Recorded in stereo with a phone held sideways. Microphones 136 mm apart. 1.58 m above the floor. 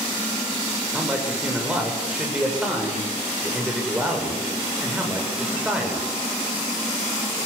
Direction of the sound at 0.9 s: 10° right (ahead or behind).